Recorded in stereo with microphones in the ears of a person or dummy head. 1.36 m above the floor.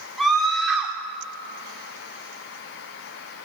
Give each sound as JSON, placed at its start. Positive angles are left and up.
{"t": 0.2, "sound": "a scream", "side_deg": -5, "distance_m": 3.5}